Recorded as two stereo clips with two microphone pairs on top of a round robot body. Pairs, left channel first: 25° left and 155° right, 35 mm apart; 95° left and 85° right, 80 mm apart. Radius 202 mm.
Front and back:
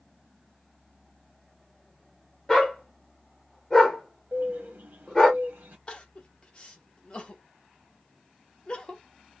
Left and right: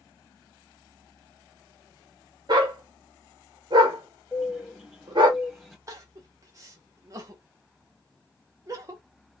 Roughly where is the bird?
Behind.